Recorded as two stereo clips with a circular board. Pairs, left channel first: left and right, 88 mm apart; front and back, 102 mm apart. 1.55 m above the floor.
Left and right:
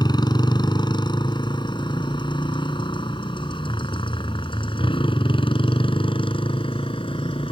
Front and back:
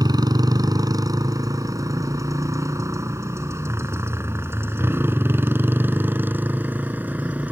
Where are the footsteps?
No footsteps in this recording.